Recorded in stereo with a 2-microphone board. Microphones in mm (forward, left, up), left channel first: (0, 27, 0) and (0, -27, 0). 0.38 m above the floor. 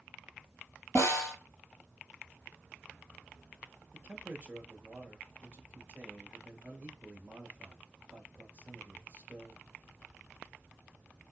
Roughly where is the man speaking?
Right.